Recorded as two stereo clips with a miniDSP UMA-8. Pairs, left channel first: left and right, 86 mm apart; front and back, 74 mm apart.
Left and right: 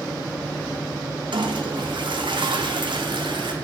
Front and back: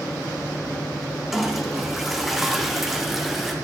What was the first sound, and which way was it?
A toilet flushing, 95° right.